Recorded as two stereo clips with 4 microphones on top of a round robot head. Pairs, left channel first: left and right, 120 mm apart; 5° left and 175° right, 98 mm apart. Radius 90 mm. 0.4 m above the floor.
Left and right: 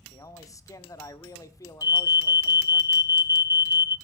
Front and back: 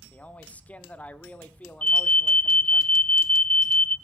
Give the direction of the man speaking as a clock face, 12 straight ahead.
10 o'clock.